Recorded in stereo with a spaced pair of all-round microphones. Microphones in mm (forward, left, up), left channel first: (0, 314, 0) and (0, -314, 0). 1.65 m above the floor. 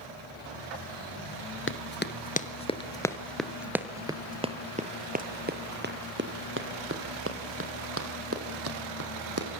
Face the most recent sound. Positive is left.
turn(degrees=-25)  # may be behind; listen again after turning